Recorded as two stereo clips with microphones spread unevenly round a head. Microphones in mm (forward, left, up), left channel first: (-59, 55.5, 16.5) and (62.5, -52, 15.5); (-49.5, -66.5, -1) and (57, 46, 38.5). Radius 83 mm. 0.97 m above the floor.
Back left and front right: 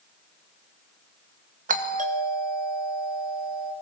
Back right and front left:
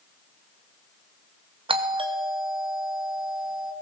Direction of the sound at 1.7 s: 15° right.